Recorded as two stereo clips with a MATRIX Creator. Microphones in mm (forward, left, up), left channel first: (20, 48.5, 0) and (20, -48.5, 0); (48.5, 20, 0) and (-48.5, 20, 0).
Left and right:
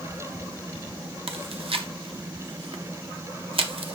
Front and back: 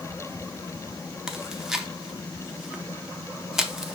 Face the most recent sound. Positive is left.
turn(degrees=-95)